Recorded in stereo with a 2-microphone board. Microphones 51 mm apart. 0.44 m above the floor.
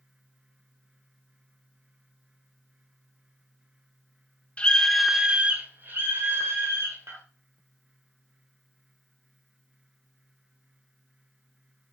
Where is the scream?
20° left (ahead or behind), 0.9 m; by 7.2 s 65° right (ahead or behind), 2 m.